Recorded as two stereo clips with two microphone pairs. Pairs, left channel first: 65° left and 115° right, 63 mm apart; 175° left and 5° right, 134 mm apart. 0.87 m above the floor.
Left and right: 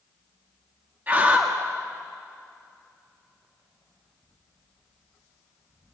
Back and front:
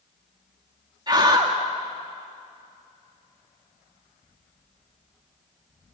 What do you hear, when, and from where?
1.1 s a scream: 60° right, 1.7 m